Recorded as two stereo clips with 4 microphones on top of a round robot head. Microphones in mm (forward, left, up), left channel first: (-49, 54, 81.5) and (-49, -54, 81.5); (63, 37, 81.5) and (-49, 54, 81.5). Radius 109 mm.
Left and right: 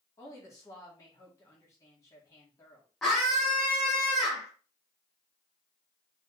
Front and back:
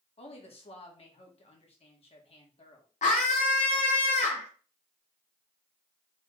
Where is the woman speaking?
25° left, 1.6 m.